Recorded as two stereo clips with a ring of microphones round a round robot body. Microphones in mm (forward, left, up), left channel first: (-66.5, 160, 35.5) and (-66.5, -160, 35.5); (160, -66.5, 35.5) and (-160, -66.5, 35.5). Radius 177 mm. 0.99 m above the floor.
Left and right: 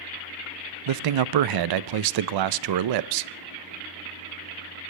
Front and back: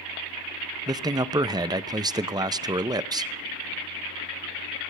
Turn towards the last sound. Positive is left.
turn(degrees=-100)